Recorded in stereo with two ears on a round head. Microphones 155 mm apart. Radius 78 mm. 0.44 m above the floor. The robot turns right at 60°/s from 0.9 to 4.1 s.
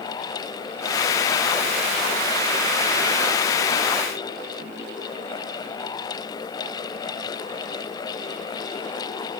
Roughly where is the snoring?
I don't hear snoring.